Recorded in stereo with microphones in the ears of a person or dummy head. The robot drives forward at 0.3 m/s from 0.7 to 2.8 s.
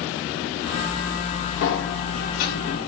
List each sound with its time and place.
1.6 s a sliding door: 50° left (ahead or behind), 0.8 m; by 2.9 s 45° left (ahead or behind), 0.9 m